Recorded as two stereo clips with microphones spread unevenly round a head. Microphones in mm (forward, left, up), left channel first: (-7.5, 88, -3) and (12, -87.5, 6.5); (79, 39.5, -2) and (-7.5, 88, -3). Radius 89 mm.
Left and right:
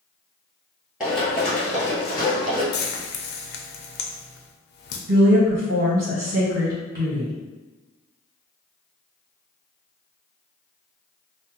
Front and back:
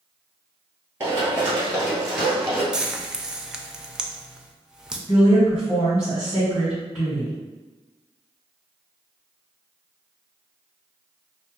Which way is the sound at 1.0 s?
165° right.